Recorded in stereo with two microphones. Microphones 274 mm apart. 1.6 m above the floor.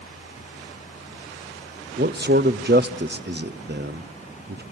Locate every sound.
2.0 s a man speaking: 40° right (ahead or behind), 0.6 m